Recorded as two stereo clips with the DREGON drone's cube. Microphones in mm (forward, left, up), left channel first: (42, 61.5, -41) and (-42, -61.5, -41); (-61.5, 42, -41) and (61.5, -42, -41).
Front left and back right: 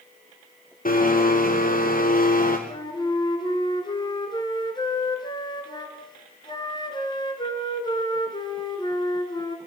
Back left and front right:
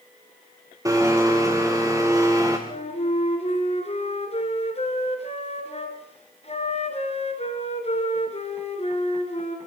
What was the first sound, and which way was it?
A blender, 35° left.